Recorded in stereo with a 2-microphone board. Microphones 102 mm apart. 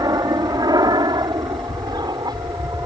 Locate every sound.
0.0 s an aircraft: 40° right (ahead or behind)